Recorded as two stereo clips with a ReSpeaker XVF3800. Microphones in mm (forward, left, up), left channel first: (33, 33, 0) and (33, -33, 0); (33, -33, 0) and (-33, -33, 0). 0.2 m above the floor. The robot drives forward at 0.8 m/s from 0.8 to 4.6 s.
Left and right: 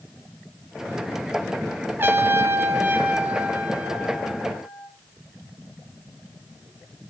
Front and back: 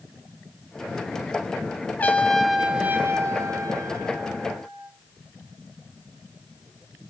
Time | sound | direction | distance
2.0 | a trumpet | 50° right | 0.9 m